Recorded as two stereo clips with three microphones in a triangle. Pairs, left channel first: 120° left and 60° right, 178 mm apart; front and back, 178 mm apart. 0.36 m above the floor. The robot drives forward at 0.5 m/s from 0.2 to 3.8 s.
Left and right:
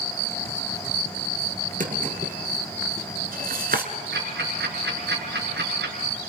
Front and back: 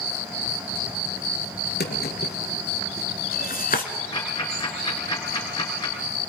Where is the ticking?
65° right, 5.5 m.